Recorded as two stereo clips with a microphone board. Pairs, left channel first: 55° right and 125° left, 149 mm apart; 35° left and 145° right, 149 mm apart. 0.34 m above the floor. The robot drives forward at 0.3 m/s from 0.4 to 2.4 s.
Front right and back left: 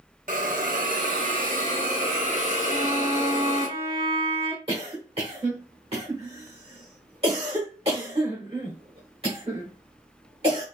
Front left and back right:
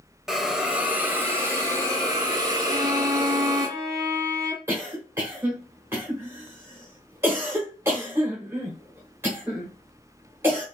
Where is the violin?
150° left, 1.1 m.